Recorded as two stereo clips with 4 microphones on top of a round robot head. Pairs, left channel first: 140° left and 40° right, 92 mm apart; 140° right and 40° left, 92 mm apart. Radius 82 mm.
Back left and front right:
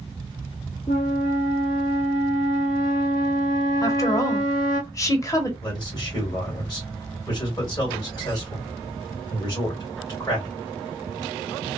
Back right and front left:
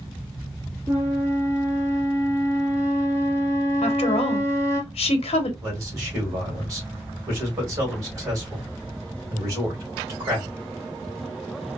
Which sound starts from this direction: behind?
A woman speaking, at 3.8 s.